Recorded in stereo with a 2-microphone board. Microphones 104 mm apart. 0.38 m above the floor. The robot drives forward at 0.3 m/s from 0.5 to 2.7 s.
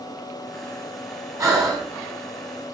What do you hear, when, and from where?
1.4 s breathing: 35° right (ahead or behind), 3.5 m